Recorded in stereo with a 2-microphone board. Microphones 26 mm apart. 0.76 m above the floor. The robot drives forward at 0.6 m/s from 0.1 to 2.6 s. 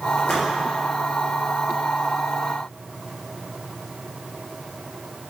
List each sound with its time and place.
0.2 s a splash: 70° left (ahead or behind), 2.5 m